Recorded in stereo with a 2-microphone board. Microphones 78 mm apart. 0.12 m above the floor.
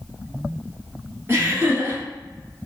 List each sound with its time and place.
1.3 s laughter: 30° right (ahead or behind), 1.9 m